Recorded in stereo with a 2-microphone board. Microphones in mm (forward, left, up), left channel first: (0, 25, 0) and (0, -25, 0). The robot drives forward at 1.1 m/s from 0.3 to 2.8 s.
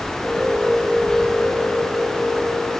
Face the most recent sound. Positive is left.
No sound to turn to.